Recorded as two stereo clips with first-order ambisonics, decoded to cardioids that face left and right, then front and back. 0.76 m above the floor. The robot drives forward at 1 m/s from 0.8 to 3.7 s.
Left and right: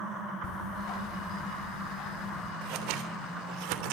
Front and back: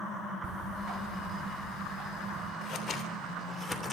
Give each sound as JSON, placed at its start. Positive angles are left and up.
{"t": 0.4, "sound": "ticking", "azimuth_deg": 135, "distance_m": 5.0}
{"t": 2.6, "sound": "scissors", "azimuth_deg": -60, "distance_m": 3.0}